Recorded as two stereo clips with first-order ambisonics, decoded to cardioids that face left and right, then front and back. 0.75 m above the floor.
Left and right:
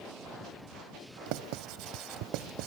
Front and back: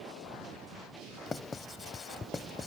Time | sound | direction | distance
1.3 | writing | 75° right | ?